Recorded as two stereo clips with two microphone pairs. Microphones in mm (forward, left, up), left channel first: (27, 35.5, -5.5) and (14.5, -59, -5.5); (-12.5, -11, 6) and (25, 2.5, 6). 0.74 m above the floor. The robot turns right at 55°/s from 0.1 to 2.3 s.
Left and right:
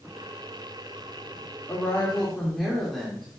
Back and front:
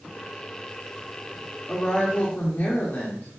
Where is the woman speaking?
135° left, 1.7 m; by 3.3 s 170° left, 1.7 m.